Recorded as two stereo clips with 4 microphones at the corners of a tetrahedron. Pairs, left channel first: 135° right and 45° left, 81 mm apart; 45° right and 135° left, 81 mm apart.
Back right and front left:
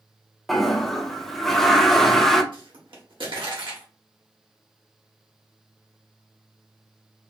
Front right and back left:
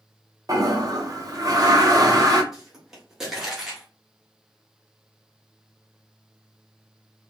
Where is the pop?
50° left, 1.5 m.